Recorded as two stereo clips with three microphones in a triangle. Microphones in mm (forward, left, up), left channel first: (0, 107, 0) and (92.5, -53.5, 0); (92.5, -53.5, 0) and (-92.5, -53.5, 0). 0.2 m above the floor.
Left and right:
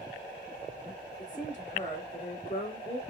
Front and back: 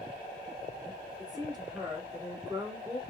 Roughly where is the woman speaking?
Behind left.